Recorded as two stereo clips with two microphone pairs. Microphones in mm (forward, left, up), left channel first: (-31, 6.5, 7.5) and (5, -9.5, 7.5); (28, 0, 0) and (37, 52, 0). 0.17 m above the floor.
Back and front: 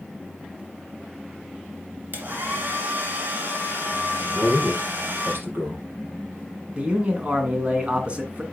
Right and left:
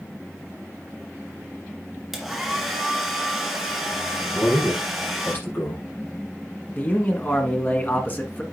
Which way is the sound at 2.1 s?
5° right.